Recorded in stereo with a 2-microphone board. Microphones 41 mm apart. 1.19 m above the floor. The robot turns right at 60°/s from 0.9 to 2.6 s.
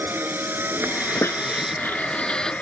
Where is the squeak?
85° left; by 2.5 s 15° left (ahead or behind).